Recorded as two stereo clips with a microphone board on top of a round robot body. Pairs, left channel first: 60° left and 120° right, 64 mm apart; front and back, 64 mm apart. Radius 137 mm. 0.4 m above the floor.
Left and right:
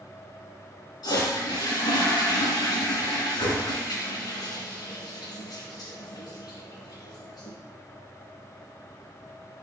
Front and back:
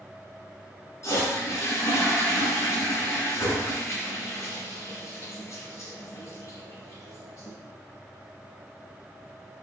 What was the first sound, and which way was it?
A toilet flushing, 50° left.